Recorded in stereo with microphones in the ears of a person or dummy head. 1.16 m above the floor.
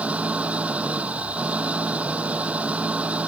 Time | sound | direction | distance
0.0 | an engine running | 5° right (ahead or behind) | ?